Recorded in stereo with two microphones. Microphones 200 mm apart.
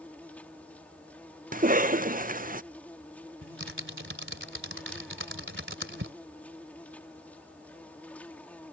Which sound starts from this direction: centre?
An insect, at 0.0 s.